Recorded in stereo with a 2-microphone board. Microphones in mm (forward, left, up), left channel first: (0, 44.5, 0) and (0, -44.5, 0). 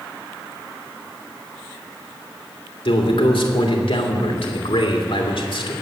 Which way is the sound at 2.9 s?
75° left (ahead or behind).